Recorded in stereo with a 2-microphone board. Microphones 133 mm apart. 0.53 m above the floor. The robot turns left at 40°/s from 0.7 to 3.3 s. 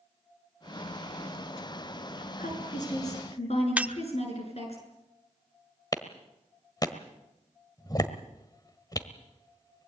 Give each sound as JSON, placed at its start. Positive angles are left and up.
{"t": 2.4, "sound": "a woman speaking", "azimuth_deg": 95, "distance_m": 7.5}
{"t": 3.8, "sound": "breaking glass", "side_deg": -10, "distance_m": 0.7}
{"t": 5.9, "sound": "a clap", "side_deg": 30, "distance_m": 1.5}